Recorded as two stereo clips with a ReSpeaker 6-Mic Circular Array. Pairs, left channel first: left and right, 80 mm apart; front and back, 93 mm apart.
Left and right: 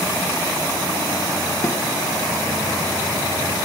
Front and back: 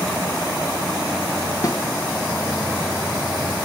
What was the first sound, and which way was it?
A snare drum, 40° left.